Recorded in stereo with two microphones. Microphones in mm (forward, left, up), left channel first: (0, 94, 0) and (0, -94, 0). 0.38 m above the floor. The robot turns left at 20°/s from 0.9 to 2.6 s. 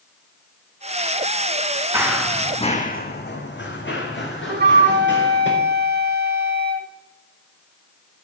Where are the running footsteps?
15° right (ahead or behind), 1.4 m; by 5.5 s 75° left (ahead or behind), 3.5 m.